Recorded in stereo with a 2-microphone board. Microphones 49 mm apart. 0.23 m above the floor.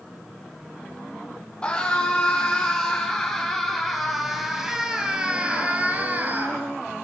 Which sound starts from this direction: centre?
A scream, at 1.6 s.